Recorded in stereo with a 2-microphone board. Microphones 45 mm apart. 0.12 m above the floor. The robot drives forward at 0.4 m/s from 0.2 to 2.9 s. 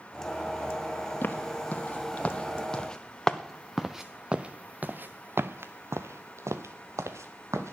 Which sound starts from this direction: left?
Footsteps, at 1.2 s.